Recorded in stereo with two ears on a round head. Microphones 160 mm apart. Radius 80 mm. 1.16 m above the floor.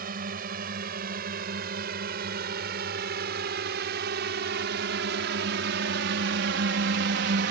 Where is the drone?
50° right (ahead or behind); by 7.5 s 60° right (ahead or behind).